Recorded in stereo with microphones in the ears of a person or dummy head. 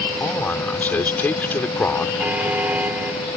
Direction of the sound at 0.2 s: 10° left (ahead or behind).